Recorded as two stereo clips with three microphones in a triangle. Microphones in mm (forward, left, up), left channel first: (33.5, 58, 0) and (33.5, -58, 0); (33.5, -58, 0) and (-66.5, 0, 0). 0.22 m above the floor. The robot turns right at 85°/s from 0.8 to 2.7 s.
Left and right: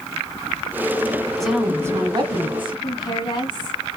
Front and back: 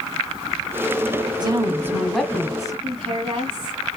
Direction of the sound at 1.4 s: 175° left.